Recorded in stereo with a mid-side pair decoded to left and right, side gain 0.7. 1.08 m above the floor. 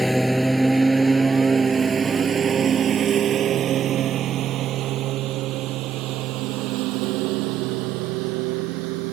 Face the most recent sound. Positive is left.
turn(degrees=-70)